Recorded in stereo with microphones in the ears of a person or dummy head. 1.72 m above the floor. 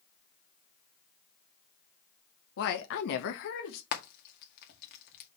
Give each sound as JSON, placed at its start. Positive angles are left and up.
{"t": 2.6, "sound": "a woman speaking", "side_deg": 65, "distance_m": 1.5}
{"t": 3.9, "sound": "frying", "side_deg": 55, "distance_m": 1.9}